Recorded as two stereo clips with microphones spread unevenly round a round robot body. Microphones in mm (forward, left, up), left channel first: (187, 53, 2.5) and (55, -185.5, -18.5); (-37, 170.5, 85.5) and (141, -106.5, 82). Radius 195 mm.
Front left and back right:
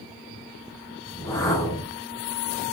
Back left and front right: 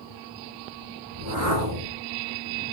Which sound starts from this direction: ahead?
A whoosh, at 1.1 s.